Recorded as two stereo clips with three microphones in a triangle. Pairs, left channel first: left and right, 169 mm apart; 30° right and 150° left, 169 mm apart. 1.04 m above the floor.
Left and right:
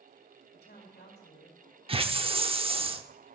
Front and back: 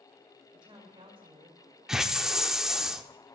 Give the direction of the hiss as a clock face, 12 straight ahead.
4 o'clock.